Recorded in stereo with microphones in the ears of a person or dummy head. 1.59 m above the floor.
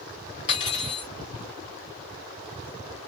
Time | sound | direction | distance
0.5 | cutlery clinking | 40° left (ahead or behind) | 1.1 m